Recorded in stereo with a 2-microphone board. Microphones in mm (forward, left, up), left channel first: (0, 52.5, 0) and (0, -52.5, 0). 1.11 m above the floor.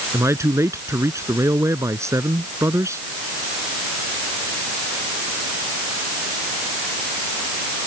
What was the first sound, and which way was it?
A man speaking, 25° right (ahead or behind).